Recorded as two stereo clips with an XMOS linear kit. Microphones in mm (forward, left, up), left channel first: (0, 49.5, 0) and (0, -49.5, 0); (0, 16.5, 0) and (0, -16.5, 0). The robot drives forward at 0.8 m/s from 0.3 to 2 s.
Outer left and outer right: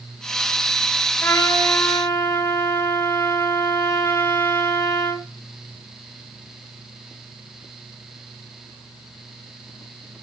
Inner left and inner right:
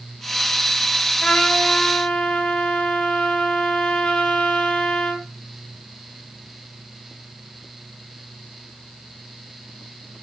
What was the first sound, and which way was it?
A trumpet, 25° left (ahead or behind).